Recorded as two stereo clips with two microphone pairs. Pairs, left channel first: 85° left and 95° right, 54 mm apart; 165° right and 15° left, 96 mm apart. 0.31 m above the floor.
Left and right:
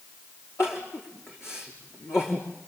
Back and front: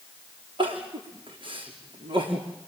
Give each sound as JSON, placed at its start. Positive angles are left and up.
{"t": 0.6, "sound": "crying", "azimuth_deg": 40, "distance_m": 5.5}